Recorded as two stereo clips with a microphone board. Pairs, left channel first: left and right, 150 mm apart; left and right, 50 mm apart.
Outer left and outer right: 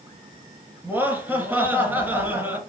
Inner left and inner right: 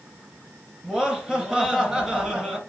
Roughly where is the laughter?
Centre.